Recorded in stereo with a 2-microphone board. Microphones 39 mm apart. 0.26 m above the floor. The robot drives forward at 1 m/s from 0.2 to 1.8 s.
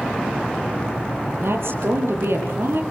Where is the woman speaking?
80° right, 8 m.